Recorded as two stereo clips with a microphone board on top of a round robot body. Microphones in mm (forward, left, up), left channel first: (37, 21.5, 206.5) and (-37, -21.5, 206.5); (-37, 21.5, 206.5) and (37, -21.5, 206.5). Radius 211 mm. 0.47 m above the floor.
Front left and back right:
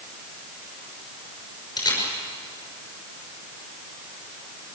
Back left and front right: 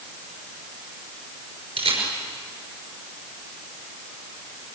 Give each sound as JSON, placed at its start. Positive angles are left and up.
{"t": 1.8, "sound": "a camera shutter", "azimuth_deg": -20, "distance_m": 5.5}